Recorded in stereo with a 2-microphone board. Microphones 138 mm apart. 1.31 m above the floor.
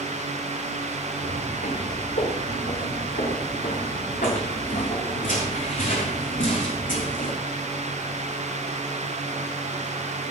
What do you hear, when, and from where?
1.2 s footsteps: 80° left, 8 m; by 7.4 s 75° left (ahead or behind), 5 m